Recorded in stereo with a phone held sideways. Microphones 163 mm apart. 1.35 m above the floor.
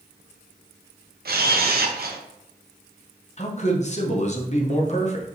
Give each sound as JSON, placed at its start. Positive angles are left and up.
{"t": 1.2, "sound": "a camera shutter", "side_deg": -70, "distance_m": 0.6}
{"t": 3.4, "sound": "a man speaking", "side_deg": 45, "distance_m": 0.8}